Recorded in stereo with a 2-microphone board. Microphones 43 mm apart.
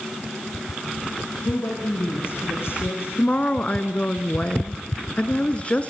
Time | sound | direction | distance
1.4 | a woman speaking | 60° left (ahead or behind) | 8 m
3.2 | a woman speaking | 30° left (ahead or behind) | 2.0 m